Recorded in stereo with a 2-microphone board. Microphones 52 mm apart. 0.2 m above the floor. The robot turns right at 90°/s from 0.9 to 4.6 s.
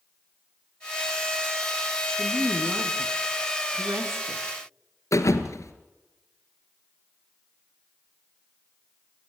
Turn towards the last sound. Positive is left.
turn(degrees=75)  # may be behind; listen again after turning